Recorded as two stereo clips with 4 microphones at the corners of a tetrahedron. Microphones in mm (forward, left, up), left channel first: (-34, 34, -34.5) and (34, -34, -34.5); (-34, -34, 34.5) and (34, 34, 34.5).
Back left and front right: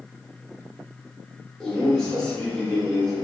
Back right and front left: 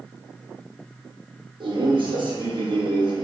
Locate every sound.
1.6 s a man speaking: 50° left, 1.1 m